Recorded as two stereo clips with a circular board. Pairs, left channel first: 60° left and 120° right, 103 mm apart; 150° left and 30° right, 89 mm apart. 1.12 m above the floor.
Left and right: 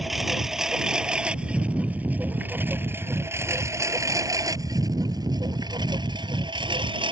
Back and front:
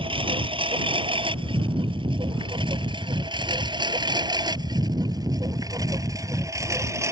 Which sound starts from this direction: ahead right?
A lawn mower, at 0.0 s.